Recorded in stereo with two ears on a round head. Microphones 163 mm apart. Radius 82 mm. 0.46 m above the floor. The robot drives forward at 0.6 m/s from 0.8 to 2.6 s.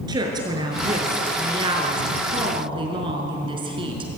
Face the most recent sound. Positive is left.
turn(degrees=-30)  # may be behind; listen again after turning